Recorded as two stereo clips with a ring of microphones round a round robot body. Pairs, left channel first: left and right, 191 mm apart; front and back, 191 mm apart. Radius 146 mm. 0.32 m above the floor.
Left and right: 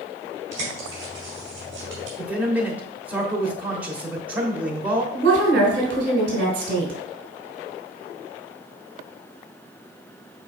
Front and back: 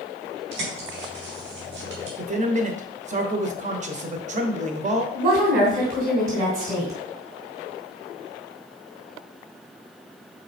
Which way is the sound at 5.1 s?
125° right.